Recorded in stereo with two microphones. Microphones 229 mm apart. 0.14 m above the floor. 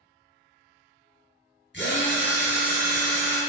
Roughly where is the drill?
Left.